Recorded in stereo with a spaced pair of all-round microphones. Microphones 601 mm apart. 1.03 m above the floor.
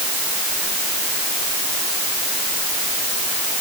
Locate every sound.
Only background noise.